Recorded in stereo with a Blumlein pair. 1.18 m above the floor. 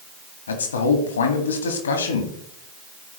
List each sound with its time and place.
0.5 s a man speaking: 70° left, 1.8 m